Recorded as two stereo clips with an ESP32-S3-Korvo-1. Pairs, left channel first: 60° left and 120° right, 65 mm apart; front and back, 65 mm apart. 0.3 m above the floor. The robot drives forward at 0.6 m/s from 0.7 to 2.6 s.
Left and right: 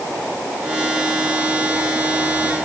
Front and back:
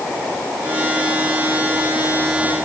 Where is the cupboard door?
I don't hear a cupboard door.